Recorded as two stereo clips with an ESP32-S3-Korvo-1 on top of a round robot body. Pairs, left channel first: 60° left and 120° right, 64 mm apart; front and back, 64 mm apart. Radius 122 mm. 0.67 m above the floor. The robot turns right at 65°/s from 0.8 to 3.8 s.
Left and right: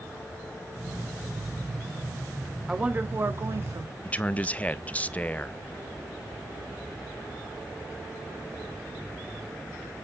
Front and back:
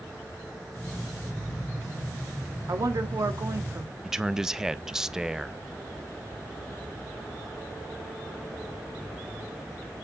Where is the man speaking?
105° left, 0.7 m.